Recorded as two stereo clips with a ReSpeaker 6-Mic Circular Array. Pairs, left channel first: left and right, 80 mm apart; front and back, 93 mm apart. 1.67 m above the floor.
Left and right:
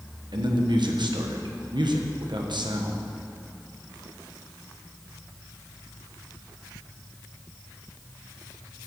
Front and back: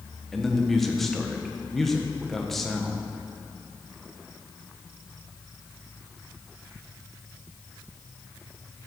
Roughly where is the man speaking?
Right.